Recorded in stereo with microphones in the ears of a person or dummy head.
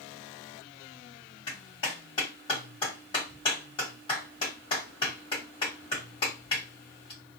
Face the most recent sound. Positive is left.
turn(degrees=35)  # may be behind; listen again after turning